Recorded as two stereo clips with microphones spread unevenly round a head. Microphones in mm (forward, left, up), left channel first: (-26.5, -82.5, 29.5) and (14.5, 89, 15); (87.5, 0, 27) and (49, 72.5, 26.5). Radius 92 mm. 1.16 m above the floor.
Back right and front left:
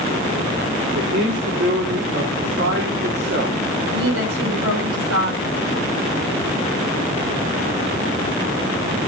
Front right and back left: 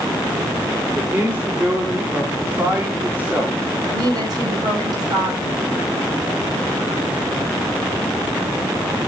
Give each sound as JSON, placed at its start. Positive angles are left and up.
{"t": 0.9, "sound": "a man speaking", "azimuth_deg": 50, "distance_m": 3.5}
{"t": 3.9, "sound": "a woman speaking", "azimuth_deg": 80, "distance_m": 8.0}